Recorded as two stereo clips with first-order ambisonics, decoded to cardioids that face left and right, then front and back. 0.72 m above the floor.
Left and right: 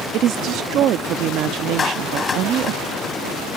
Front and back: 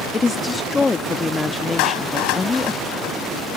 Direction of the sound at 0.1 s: 70° right.